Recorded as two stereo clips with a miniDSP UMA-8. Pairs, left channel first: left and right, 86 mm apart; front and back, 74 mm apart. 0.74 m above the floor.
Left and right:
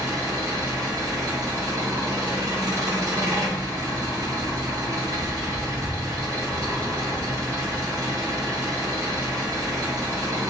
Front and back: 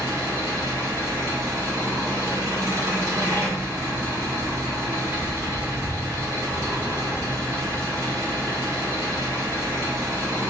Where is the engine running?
135° right, 1.8 m.